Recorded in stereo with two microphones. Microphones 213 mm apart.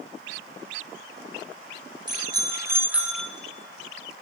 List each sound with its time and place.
2.1 s a bicycle bell: 20° right (ahead or behind), 2.5 m; by 3.3 s 5° left (ahead or behind), 1.1 m